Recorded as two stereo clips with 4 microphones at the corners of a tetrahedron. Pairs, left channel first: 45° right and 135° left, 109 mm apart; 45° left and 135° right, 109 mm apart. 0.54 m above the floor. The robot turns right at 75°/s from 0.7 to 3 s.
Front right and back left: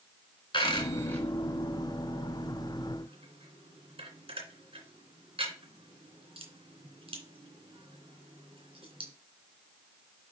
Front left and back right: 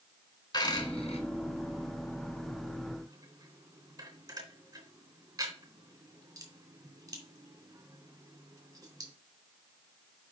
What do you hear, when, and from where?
0.5 s a dropped coin: straight ahead, 2.5 m; by 9.1 s 170° left, 2.5 m